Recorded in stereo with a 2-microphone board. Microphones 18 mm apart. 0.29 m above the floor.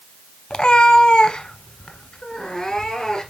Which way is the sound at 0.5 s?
60° left (ahead or behind).